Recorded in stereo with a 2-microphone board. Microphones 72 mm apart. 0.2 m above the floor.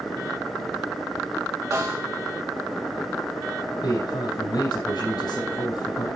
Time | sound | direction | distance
1.7 | a snare drum | 45° right (ahead or behind) | 4.5 m
3.8 | a man speaking | 65° left (ahead or behind) | 6 m